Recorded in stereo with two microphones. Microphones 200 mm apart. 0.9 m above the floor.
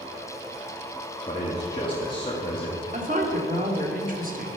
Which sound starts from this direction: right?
A woman speaking, at 2.9 s.